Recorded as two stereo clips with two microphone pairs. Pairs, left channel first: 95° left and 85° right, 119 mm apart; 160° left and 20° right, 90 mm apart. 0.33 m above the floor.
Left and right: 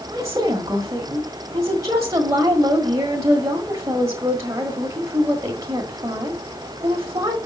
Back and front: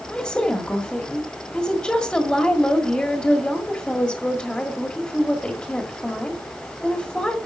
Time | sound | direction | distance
0.1 | a woman speaking | 130° right | 1.6 m